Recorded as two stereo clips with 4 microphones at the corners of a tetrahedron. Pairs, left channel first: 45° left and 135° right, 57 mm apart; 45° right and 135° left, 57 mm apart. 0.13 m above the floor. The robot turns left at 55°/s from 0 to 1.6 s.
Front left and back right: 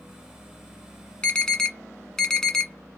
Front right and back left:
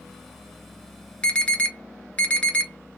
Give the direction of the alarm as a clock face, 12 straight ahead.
12 o'clock.